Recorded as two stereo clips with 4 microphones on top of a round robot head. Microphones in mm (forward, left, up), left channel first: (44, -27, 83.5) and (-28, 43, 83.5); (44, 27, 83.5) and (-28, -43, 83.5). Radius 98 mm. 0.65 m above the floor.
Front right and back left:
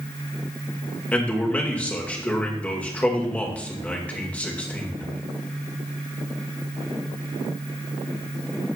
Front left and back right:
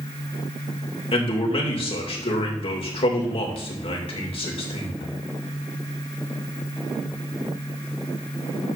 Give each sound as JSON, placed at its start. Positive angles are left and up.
{"t": 1.1, "sound": "a man speaking", "azimuth_deg": 30, "distance_m": 2.5}